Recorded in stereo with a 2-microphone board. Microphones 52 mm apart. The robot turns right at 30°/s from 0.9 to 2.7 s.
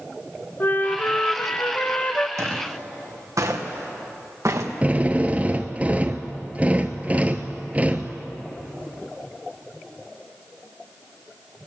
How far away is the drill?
About 1.1 m.